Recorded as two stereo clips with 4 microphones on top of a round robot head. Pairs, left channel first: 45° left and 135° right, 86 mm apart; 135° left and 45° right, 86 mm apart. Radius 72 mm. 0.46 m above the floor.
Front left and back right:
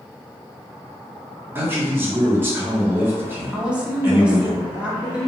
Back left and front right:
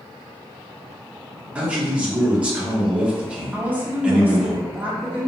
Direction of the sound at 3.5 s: 80° right.